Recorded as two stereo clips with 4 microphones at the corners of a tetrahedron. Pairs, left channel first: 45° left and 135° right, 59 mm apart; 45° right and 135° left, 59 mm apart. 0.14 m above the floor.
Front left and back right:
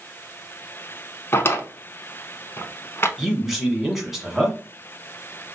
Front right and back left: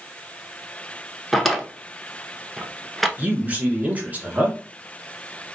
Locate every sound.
1.3 s a drawer: 45° left, 0.6 m
3.2 s a man speaking: 140° left, 1.2 m